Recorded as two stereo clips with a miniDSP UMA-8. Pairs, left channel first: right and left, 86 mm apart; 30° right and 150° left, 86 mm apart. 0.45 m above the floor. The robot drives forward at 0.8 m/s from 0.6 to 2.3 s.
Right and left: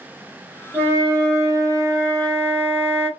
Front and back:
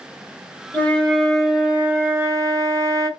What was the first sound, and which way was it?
A flute, 30° left.